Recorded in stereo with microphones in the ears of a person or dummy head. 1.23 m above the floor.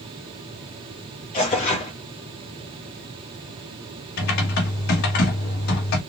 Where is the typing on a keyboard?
60° left (ahead or behind), 1.5 m.